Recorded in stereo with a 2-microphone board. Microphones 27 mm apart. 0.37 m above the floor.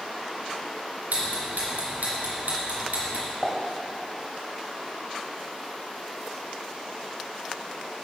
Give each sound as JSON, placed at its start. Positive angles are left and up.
{"t": 1.1, "sound": "ticking", "side_deg": -85, "distance_m": 2.5}
{"t": 3.4, "sound": "a pop", "side_deg": 25, "distance_m": 1.6}